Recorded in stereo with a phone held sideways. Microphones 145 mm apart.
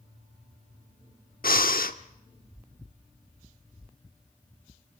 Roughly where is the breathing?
Left.